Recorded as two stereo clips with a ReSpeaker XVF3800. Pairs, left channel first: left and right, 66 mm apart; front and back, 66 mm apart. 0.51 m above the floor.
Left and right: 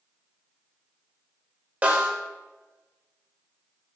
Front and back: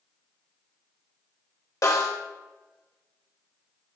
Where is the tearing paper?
I don't hear tearing paper.